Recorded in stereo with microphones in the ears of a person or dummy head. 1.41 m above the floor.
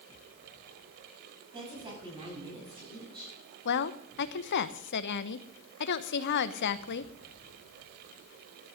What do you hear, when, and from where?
1.5 s a woman speaking: 35° right (ahead or behind), 8.5 m; by 3.3 s 30° right (ahead or behind), 9 m
3.6 s a woman speaking: 60° left (ahead or behind), 0.9 m